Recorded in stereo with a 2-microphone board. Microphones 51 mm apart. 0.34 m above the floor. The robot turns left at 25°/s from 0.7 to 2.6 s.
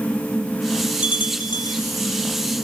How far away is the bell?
About 1.0 m.